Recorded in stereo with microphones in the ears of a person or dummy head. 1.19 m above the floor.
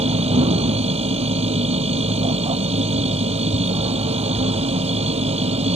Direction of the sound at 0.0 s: 35° right (ahead or behind).